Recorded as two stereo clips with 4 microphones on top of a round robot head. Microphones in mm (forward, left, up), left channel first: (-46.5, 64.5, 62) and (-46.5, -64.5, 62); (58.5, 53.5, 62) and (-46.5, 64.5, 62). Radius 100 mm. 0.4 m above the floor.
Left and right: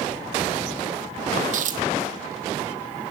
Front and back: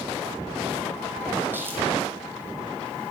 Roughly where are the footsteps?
Right.